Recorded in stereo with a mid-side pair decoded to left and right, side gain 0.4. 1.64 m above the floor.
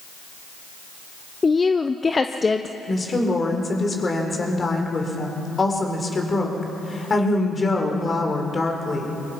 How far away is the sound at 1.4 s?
About 0.8 m.